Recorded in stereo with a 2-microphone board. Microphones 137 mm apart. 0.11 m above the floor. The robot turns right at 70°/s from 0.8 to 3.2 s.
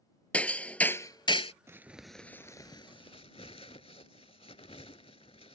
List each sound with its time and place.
0.3 s hammering: 15° left; by 1.5 s 65° left
1.7 s crumpling: 20° right (ahead or behind); by 5.5 s 50° left (ahead or behind)